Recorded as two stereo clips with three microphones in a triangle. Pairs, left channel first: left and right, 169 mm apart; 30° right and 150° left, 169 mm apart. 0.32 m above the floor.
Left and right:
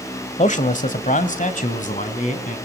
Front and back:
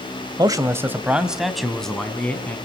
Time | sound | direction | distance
0.4 | a man speaking | 95° left | 1.4 m